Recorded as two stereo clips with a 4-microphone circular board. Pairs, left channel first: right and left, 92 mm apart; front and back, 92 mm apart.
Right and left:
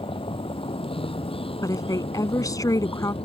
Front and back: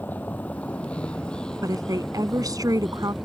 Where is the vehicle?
70° right; by 3.2 s 90° right.